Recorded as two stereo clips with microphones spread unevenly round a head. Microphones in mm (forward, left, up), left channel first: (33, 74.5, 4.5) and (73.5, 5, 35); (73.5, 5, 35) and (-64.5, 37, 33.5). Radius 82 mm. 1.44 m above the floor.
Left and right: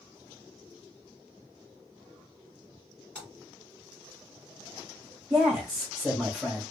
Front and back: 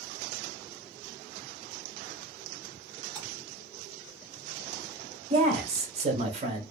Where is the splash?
140° right, 1.7 m.